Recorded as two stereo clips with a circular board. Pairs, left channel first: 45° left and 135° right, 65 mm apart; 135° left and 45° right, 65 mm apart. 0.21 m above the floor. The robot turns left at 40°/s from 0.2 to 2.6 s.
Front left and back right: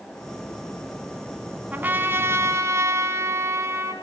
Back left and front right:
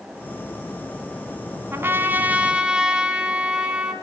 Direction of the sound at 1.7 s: 80° right.